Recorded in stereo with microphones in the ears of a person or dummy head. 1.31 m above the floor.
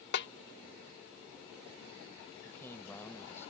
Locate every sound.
0.1 s a snare drum: 60° left (ahead or behind)
2.4 s a man speaking: 15° left (ahead or behind)